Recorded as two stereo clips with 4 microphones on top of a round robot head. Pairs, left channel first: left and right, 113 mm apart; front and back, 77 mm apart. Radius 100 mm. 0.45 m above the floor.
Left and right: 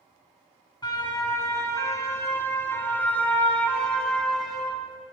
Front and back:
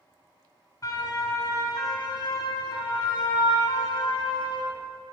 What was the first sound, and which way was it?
A siren, 40° left.